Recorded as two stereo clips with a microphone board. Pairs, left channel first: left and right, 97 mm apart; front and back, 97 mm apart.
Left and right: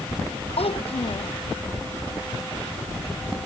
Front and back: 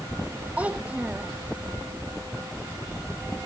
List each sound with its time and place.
0.6 s a child speaking: 105° left